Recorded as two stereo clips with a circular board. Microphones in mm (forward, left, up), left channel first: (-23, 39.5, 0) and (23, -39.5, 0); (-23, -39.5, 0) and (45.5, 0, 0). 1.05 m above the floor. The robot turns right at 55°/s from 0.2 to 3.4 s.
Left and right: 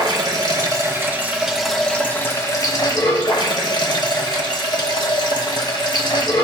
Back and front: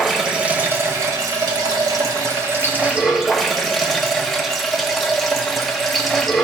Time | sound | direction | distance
0.0 | running water | 55° right | 1.1 m